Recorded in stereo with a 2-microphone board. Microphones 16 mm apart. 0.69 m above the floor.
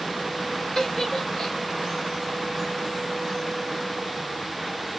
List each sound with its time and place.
0.8 s a giggle: 20° left (ahead or behind), 1.9 m